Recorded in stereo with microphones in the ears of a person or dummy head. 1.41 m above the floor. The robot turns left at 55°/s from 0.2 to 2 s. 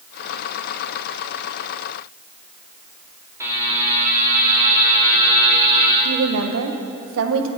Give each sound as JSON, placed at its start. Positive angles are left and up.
{"t": 3.4, "sound": "a buzzer", "side_deg": -15, "distance_m": 2.5}
{"t": 6.0, "sound": "a woman speaking", "side_deg": -80, "distance_m": 1.0}